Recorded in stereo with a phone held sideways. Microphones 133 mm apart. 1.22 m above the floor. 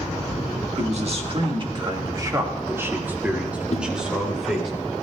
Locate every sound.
0.8 s a man speaking: 55° right (ahead or behind), 1.6 m; by 4.7 s centre (ahead or behind), 3 m
3.7 s a whoosh: 50° left (ahead or behind), 1.2 m